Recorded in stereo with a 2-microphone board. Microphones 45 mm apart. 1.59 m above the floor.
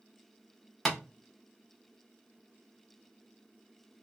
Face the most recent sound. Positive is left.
turn(degrees=5)  # may be behind; listen again after turning